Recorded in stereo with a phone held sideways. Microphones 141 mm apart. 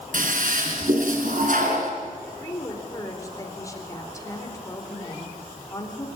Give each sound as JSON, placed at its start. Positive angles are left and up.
{"t": 0.1, "sound": "a toilet flushing", "side_deg": -70, "distance_m": 4.0}
{"t": 2.4, "sound": "a woman speaking", "side_deg": 20, "distance_m": 4.5}